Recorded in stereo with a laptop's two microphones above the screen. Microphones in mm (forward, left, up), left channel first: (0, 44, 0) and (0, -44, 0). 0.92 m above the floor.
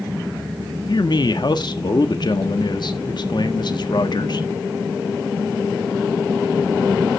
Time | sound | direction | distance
0.9 | a man speaking | 55° left (ahead or behind) | 1.7 m